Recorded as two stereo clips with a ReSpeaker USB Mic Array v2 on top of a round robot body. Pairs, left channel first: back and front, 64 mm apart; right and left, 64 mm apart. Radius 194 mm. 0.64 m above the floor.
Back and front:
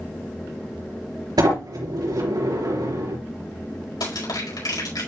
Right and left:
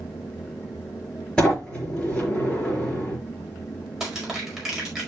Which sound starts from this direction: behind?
Crushing, at 4.0 s.